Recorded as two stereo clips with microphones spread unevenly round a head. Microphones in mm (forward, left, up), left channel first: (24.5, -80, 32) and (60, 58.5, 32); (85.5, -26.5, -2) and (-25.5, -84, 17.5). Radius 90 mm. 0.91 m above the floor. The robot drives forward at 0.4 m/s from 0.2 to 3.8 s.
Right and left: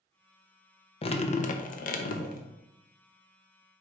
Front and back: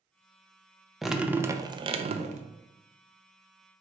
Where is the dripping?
60° right, 0.5 m; by 2.4 s 125° right, 0.6 m.